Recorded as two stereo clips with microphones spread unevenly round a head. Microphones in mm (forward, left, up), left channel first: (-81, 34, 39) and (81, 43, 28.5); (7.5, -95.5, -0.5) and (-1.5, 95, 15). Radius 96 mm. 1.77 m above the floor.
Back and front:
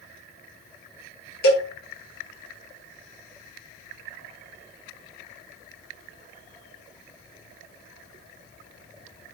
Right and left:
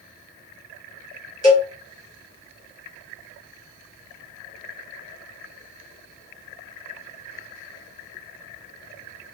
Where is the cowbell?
160° left, 1.1 m.